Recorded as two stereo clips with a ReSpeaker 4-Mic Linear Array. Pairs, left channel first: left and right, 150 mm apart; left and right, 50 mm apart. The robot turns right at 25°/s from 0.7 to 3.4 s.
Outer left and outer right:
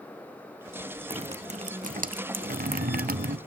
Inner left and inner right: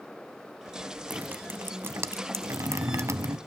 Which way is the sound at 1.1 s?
140° right.